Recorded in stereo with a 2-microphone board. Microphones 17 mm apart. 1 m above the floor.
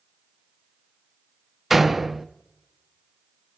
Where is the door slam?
15° right (ahead or behind), 0.7 m.